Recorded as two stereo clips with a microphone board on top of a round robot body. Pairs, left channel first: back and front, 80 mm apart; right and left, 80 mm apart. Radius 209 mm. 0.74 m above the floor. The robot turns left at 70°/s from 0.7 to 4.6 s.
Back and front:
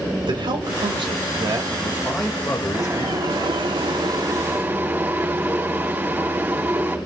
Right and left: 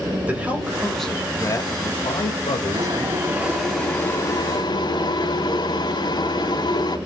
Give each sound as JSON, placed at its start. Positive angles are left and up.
{"t": 0.3, "sound": "a man speaking", "azimuth_deg": 20, "distance_m": 4.0}
{"t": 2.7, "sound": "boiling", "azimuth_deg": 60, "distance_m": 5.5}